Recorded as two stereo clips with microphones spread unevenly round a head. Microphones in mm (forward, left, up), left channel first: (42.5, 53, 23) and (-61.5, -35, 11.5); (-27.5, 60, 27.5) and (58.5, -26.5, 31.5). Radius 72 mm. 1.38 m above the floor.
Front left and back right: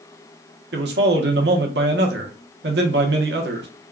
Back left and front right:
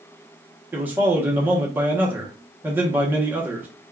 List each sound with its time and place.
0.7 s a man speaking: 120° right, 0.9 m